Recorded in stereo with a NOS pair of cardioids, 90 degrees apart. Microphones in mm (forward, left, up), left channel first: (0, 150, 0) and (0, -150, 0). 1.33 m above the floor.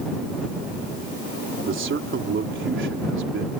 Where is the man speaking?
40° right.